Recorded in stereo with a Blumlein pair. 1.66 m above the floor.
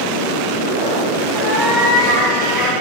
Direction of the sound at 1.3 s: 15° left.